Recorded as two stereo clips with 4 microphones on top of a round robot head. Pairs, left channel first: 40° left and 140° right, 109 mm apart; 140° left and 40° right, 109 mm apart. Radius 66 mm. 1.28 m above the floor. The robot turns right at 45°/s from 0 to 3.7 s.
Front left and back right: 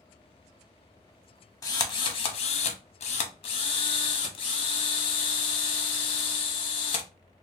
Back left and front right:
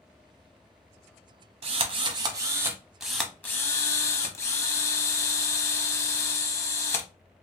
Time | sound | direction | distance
1.6 | a drill | 15° right | 0.7 m